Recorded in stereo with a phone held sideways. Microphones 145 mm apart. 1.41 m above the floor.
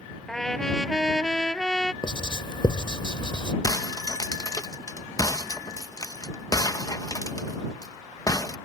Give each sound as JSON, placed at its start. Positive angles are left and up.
{"t": 0.3, "sound": "a trumpet", "side_deg": 5}
{"t": 2.0, "sound": "writing", "side_deg": 35}
{"t": 3.6, "sound": "breaking glass", "side_deg": 25}